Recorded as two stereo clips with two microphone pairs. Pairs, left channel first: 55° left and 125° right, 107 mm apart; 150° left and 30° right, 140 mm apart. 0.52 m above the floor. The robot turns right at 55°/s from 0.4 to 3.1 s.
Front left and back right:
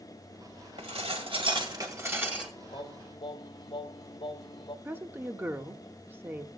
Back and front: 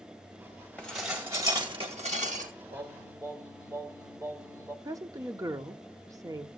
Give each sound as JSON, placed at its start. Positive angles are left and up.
{"t": 0.8, "sound": "dishes clattering", "azimuth_deg": -135, "distance_m": 1.9}
{"t": 2.7, "sound": "singing", "azimuth_deg": 15, "distance_m": 1.1}
{"t": 4.8, "sound": "a woman speaking", "azimuth_deg": -75, "distance_m": 0.7}